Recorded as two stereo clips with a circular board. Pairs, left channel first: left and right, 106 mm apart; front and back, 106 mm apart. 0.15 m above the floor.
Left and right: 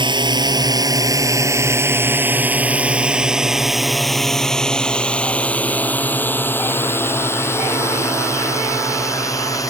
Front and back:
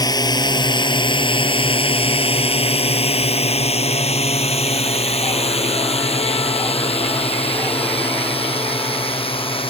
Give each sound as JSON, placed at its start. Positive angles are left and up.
{"t": 0.0, "sound": "a drone", "azimuth_deg": -50}